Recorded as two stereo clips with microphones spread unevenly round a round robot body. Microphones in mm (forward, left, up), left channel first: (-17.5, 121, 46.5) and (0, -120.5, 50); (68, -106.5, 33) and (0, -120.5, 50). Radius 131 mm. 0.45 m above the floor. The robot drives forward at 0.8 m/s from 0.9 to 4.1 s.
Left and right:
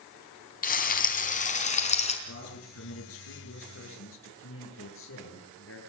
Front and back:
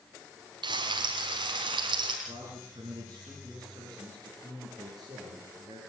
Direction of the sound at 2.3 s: 120° left.